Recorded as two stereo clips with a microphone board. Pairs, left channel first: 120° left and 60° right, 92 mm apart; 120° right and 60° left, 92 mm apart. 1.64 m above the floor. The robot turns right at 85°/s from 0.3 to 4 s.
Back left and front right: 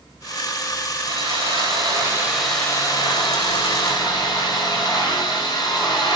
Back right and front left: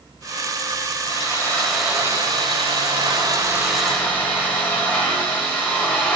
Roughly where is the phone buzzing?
No phone buzzing in this recording.